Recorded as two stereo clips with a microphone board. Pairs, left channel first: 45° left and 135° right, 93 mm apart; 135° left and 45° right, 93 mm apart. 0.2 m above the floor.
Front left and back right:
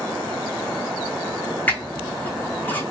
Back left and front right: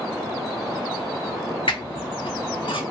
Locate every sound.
1.7 s a squeak: 115° left, 0.6 m